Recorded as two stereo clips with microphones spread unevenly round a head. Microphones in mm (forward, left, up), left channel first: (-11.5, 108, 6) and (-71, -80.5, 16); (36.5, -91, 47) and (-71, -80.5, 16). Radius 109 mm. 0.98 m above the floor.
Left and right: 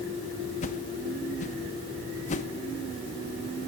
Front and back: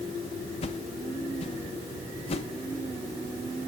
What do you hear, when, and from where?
0.6 s a whoosh: 30° left, 0.9 m